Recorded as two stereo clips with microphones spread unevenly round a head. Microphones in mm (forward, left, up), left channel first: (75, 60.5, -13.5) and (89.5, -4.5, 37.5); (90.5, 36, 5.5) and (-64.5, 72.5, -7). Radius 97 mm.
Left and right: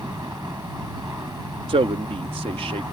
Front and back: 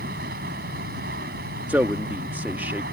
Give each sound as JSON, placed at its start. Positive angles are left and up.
{"t": 0.0, "sound": "running water", "azimuth_deg": -145}
{"t": 1.7, "sound": "a man speaking", "azimuth_deg": -110}